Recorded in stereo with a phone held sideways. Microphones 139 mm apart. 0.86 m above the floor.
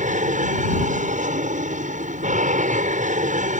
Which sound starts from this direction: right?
An aircraft, at 0.0 s.